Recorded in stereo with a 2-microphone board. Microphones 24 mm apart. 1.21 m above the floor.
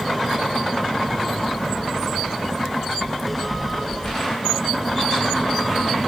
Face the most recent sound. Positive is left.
turn(degrees=5)  # may be behind; listen again after turning